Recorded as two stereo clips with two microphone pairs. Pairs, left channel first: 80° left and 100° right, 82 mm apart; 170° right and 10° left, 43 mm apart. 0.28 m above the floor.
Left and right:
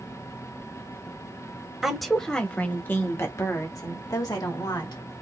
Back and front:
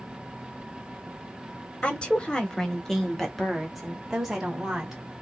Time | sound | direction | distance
1.8 | a woman speaking | 175° left | 1.1 m